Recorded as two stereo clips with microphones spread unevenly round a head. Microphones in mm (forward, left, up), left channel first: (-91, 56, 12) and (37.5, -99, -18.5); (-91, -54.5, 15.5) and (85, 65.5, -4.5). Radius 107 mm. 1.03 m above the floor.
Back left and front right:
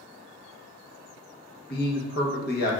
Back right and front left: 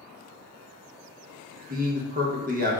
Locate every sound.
1.7 s a man speaking: 80° left, 0.8 m